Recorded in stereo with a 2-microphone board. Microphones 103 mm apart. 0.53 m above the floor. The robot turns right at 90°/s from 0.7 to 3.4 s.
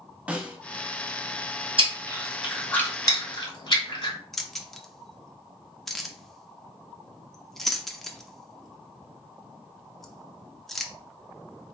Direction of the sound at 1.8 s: 55° right (ahead or behind).